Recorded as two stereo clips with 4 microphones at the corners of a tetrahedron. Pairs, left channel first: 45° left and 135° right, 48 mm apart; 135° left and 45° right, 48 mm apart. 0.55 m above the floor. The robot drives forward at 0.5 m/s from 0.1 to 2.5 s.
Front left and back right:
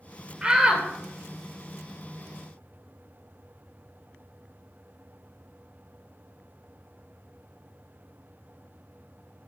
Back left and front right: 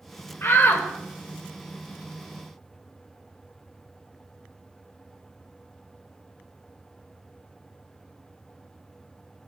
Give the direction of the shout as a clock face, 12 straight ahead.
7 o'clock.